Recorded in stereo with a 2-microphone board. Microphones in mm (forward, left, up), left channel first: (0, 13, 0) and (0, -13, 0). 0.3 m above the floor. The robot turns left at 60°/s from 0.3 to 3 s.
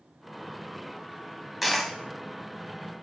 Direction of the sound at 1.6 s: 5° right (ahead or behind).